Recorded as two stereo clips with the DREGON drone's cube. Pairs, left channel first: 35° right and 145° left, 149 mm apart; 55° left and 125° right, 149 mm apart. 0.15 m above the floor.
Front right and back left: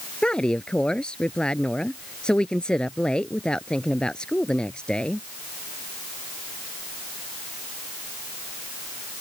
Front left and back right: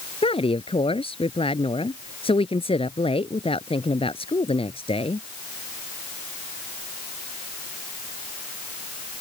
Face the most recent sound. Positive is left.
turn(degrees=45)